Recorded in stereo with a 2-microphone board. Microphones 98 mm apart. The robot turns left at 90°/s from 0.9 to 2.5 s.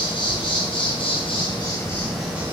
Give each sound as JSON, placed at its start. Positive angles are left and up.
{"t": 0.0, "sound": "an insect", "azimuth_deg": 115, "distance_m": 2.0}